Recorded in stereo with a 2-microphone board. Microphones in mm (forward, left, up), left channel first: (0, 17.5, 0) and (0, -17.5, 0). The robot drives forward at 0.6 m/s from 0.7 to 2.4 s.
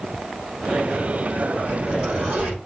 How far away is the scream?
No scream in this recording.